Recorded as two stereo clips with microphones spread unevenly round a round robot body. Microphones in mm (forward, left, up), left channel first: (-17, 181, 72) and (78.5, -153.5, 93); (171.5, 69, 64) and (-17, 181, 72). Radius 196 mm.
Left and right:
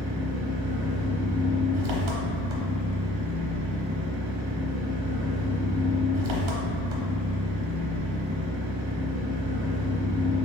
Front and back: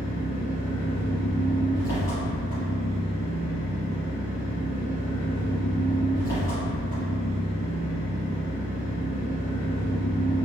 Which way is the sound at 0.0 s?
110° right.